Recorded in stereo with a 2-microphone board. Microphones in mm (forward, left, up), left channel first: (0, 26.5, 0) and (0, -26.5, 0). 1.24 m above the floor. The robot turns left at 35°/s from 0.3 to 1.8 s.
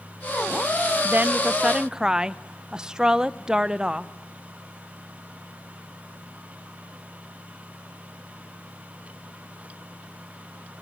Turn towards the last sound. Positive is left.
turn(degrees=-15)  # may be behind; listen again after turning